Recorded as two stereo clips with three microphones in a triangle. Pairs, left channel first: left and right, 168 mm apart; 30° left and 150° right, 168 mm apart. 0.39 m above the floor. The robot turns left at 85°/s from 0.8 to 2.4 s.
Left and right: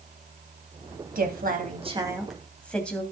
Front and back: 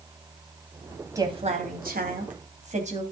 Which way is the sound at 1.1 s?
80° right.